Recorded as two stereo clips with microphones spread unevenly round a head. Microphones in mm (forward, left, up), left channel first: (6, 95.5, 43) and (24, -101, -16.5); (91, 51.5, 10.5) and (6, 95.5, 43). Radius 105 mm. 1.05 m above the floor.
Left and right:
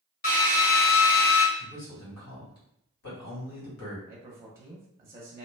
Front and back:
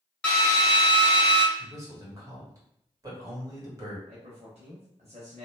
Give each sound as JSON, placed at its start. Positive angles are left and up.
{"t": 0.2, "sound": "a drill", "azimuth_deg": 40, "distance_m": 1.2}
{"t": 1.6, "sound": "a man speaking", "azimuth_deg": 90, "distance_m": 1.8}
{"t": 4.1, "sound": "a man speaking", "azimuth_deg": -160, "distance_m": 0.6}